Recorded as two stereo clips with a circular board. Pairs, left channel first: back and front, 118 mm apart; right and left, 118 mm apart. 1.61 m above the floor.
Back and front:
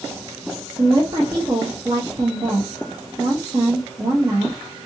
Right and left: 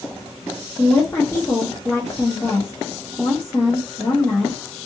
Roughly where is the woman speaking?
Ahead right.